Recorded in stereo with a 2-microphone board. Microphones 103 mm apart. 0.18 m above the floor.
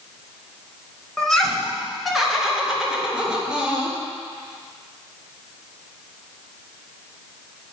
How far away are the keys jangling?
I don't hear keys jangling.